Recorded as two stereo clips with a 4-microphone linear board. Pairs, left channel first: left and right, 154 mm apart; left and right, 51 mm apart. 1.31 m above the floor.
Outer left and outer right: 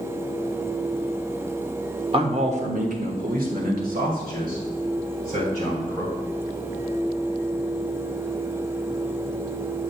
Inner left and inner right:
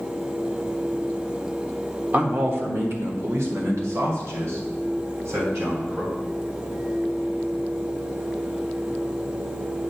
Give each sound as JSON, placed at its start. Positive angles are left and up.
{"t": 2.1, "sound": "a man speaking", "side_deg": -40, "distance_m": 1.2}